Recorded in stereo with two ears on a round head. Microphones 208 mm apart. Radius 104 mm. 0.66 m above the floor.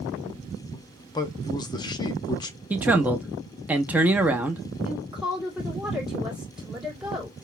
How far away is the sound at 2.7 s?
About 0.6 m.